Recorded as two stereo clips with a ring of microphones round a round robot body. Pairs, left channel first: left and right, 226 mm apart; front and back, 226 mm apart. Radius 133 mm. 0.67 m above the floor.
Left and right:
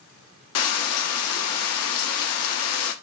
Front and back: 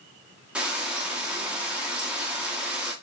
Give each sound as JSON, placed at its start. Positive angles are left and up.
{"t": 0.6, "sound": "frying", "azimuth_deg": 95, "distance_m": 0.6}